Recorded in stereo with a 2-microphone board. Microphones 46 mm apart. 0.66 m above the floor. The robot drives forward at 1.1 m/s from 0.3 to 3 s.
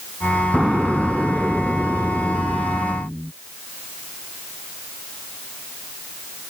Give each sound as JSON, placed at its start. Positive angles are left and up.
{"t": 0.5, "sound": "an explosion", "side_deg": -10}